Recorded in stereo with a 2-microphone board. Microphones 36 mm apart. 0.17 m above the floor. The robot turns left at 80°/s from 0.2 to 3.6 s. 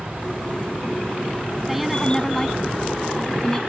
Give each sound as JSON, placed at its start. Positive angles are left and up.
{"t": 1.7, "sound": "a woman speaking", "side_deg": -10}